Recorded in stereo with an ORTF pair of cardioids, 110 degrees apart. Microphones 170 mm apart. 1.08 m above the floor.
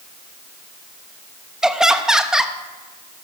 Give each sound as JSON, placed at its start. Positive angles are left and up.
{"t": 1.6, "sound": "laughter", "azimuth_deg": -5, "distance_m": 1.0}